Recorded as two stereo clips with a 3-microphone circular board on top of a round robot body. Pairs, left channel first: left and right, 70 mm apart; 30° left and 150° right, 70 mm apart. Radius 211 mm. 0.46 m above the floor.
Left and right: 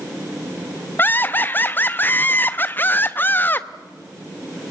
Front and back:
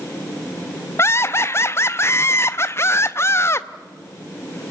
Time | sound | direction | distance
1.0 | laughter | 50° left | 0.9 m